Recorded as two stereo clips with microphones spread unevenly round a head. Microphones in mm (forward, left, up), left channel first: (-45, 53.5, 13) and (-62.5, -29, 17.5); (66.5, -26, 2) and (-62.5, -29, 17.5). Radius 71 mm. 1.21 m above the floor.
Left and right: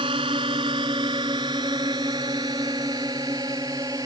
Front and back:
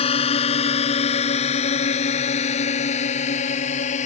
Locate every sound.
0.0 s a drone: 45° right; by 4.1 s 35° right